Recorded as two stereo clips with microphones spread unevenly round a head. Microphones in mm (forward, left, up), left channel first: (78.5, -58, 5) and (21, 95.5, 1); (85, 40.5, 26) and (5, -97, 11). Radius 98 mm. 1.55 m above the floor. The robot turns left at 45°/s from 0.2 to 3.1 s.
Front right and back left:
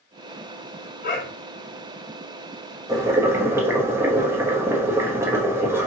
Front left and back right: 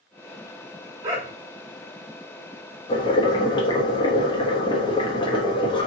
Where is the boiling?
55° left, 1.0 m; by 5.9 s 45° left, 1.0 m.